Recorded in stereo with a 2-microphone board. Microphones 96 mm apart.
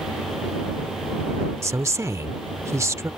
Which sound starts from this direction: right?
A woman speaking, at 1.6 s.